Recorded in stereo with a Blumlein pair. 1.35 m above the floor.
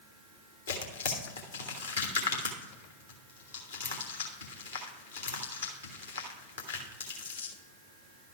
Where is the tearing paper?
70° left, 1.3 m.